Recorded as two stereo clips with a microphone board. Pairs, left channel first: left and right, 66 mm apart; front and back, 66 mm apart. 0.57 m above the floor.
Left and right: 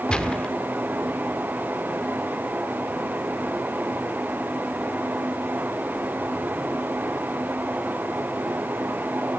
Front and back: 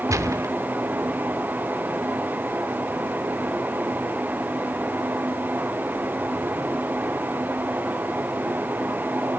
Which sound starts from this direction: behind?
A gunshot, at 0.1 s.